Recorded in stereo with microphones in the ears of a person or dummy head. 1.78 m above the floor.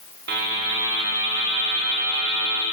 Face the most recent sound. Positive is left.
turn(degrees=-55)  # may be behind; listen again after turning